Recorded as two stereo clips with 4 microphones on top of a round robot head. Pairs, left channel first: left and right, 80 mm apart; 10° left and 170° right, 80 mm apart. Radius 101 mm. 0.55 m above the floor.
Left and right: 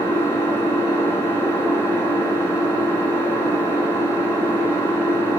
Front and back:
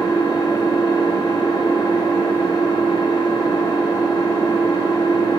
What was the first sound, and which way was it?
An engine running, 35° left.